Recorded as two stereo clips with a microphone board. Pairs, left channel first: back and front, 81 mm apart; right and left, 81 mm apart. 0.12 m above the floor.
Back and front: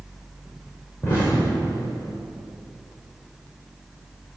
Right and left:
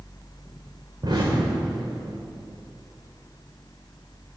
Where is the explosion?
120° left, 2.5 m.